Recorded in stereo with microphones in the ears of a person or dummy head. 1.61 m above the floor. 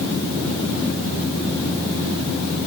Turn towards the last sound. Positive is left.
No sound to turn to.